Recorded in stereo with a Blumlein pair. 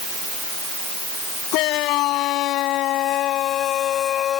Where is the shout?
40° left; by 4.4 s 25° left.